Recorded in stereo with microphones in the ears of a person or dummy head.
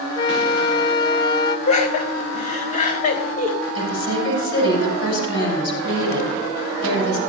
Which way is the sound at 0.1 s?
25° left (ahead or behind).